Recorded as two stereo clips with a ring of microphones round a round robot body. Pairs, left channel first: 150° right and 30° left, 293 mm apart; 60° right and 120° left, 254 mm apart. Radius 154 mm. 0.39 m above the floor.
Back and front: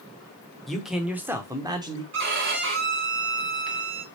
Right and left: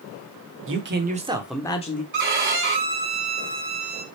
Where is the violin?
80° left, 1.4 m.